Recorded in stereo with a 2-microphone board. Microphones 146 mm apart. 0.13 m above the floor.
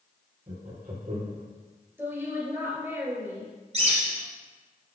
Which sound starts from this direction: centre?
A woman speaking, at 2.0 s.